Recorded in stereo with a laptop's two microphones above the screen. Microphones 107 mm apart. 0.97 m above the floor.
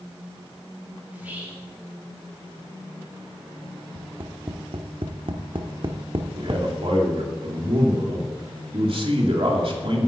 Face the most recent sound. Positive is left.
turn(degrees=-60)  # may be behind; listen again after turning